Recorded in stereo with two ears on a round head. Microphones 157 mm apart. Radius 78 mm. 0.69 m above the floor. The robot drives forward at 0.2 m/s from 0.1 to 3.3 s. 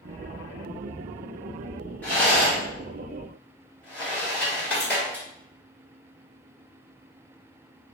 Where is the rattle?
10° left (ahead or behind), 1.4 m.